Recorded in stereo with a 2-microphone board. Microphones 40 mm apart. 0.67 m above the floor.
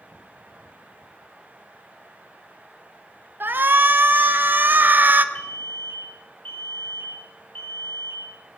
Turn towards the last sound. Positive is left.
turn(degrees=45)  # may be behind; listen again after turning